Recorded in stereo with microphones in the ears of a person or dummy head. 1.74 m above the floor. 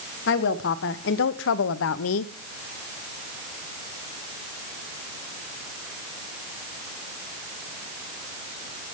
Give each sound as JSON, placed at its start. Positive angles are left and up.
{"t": 0.3, "sound": "a woman speaking", "side_deg": 60, "distance_m": 2.0}